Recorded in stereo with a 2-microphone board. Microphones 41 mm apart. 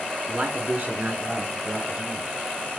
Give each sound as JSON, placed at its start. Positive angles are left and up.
{"t": 0.3, "sound": "a man speaking", "side_deg": -40, "distance_m": 2.0}